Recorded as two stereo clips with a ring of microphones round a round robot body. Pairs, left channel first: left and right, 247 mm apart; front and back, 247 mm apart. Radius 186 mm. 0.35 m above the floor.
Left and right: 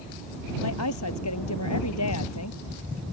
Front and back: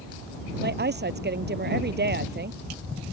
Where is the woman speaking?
135° left.